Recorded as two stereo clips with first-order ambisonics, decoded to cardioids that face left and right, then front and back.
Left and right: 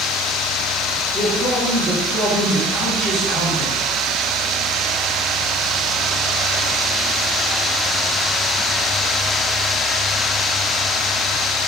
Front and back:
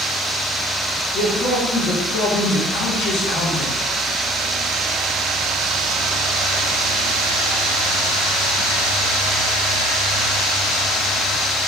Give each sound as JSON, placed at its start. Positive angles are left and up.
{"t": 1.1, "sound": "a man speaking", "azimuth_deg": 20, "distance_m": 1.7}